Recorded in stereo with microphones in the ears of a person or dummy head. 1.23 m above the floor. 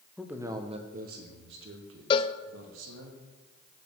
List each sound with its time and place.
0.2 s a man speaking: centre (ahead or behind), 0.8 m; by 3.1 s 75° right (ahead or behind), 2.0 m
2.1 s a cowbell: 30° left (ahead or behind), 0.5 m